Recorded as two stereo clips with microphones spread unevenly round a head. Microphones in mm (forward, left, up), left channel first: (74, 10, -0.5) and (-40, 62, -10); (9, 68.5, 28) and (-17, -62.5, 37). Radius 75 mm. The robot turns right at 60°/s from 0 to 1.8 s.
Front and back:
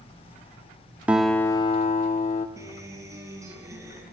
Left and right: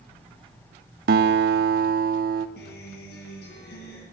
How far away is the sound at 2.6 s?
About 8.5 m.